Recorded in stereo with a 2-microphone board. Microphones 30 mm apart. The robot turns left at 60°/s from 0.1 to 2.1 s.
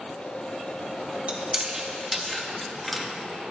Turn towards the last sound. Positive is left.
turn(degrees=5)  # may be behind; listen again after turning